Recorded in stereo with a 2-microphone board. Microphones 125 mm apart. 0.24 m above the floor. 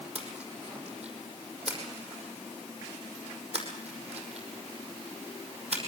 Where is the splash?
60° right (ahead or behind), 5.5 m.